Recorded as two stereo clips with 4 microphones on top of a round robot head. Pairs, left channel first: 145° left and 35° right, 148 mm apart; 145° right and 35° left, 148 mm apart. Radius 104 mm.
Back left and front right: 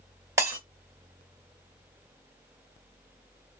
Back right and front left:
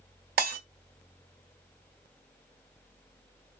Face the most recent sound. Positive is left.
turn(degrees=35)